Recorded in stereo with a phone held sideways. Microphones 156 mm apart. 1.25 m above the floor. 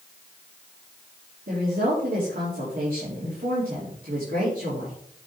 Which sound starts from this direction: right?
A woman speaking, at 1.5 s.